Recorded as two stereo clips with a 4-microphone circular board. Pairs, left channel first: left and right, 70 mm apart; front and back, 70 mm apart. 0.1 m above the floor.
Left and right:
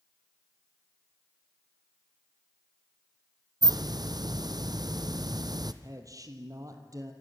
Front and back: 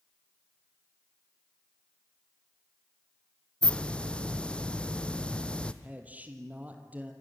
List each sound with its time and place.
3.6 s a hiss: 75° right, 1.0 m
5.8 s a man speaking: 115° right, 2.5 m